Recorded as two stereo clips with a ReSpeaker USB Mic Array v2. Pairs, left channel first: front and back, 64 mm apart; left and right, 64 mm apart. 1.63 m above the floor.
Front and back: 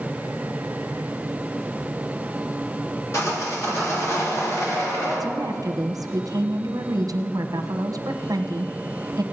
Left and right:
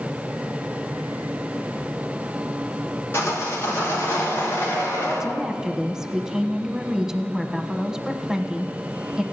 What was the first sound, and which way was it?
Sawing, 40° left.